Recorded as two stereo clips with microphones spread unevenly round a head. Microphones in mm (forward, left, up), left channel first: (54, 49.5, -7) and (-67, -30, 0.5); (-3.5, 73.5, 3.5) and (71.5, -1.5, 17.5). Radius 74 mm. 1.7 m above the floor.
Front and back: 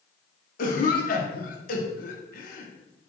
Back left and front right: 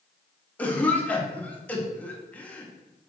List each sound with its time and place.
0.6 s a cough: 55° left, 0.9 m